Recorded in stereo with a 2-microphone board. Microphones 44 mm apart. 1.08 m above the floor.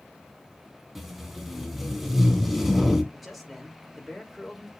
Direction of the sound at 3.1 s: 5° right (ahead or behind).